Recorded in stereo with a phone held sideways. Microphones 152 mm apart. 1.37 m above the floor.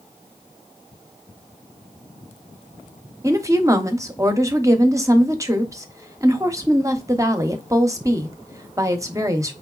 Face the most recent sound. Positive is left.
turn(degrees=-20)  # may be behind; listen again after turning